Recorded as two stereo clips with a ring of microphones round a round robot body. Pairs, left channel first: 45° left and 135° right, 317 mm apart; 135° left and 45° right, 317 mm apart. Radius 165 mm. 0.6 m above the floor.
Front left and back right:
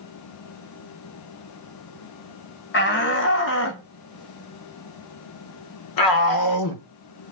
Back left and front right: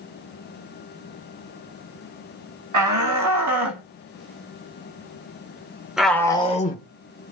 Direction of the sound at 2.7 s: 10° right.